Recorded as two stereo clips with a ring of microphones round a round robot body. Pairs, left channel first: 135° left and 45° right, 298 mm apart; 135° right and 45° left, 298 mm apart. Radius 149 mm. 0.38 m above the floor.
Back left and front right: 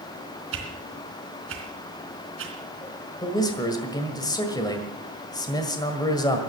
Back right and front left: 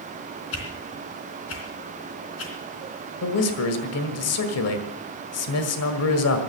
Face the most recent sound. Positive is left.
turn(degrees=-150)